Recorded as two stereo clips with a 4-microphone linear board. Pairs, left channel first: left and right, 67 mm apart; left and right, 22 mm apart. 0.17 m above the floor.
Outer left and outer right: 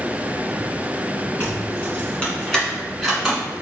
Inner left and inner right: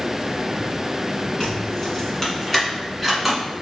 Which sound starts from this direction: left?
Keys jangling, at 1.4 s.